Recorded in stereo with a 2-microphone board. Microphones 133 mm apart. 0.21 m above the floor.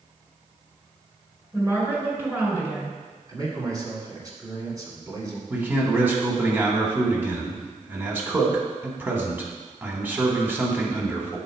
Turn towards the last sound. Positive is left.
turn(degrees=-15)  # may be behind; listen again after turning